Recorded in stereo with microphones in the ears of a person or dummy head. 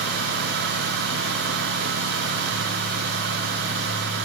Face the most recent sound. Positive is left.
No sound to turn to.